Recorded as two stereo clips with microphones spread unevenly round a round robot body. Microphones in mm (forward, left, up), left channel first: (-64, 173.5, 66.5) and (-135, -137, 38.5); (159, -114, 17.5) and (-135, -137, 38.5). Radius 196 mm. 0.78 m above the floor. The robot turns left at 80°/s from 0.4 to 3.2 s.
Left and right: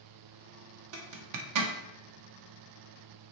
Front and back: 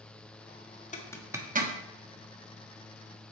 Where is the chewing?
I don't hear chewing.